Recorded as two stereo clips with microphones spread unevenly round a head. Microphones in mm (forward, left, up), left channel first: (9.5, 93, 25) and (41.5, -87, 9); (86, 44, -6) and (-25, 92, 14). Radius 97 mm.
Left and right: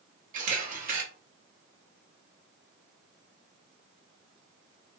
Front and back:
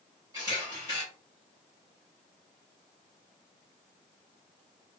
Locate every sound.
0.3 s a camera shutter: 130° right, 0.8 m